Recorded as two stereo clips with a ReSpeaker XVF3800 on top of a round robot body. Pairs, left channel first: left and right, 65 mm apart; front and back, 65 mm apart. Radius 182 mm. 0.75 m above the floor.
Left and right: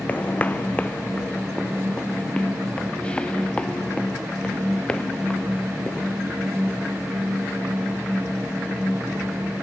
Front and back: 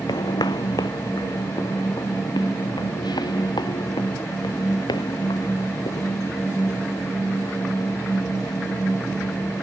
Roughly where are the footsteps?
Ahead.